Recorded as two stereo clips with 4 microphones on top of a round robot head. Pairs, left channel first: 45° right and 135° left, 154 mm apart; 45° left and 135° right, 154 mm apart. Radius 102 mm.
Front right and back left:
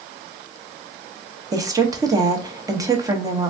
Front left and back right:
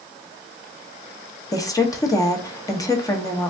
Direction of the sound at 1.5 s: 90° left.